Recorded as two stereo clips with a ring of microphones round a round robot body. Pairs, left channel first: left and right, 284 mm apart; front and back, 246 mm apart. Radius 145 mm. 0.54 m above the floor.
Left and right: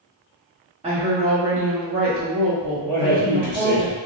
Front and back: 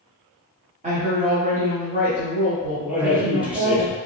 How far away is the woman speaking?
About 0.9 m.